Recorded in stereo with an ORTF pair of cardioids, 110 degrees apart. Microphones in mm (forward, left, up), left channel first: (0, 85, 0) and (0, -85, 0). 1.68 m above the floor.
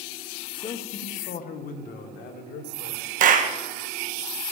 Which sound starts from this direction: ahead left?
A man speaking, at 0.5 s.